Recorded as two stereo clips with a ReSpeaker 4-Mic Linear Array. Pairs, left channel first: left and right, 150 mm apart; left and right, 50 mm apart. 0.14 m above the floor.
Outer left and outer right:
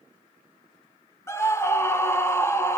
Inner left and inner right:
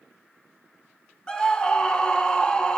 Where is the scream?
20° left (ahead or behind), 1.2 m.